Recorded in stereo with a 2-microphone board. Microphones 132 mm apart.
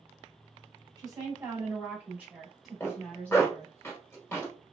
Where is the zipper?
20° left (ahead or behind), 1.5 m.